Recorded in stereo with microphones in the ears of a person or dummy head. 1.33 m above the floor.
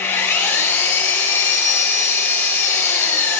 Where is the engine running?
15° left (ahead or behind), 5 m.